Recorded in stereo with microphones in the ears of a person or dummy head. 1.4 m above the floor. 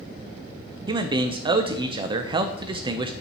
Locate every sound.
0.9 s a man speaking: 25° right (ahead or behind), 0.5 m